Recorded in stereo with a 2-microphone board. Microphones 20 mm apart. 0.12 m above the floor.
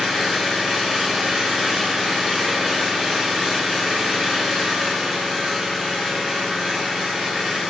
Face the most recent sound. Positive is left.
turn(degrees=-25)  # may be behind; listen again after turning